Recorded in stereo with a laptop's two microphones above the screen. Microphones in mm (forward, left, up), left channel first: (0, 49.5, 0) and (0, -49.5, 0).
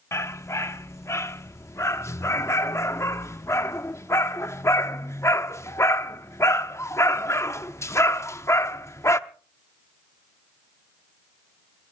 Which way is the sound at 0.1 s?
30° left (ahead or behind).